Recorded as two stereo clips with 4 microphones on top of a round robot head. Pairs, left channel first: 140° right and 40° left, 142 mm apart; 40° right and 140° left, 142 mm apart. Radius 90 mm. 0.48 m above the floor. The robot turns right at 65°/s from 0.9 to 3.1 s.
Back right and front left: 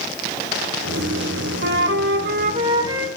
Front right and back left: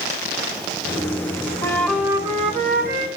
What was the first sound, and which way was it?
A flute, 30° left.